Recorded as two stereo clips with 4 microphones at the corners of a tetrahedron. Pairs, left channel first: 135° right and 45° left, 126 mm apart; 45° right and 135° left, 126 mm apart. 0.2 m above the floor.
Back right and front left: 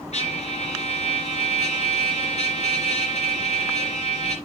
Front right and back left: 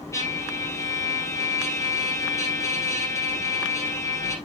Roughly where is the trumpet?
Right.